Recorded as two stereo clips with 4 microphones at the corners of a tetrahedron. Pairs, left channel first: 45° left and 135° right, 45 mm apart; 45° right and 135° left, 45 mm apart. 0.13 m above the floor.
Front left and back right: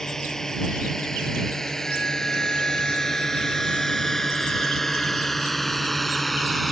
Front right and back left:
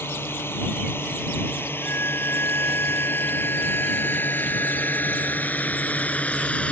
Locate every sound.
0.0 s a drone: 30° right; by 6.7 s 40° right
1.8 s a violin: 25° right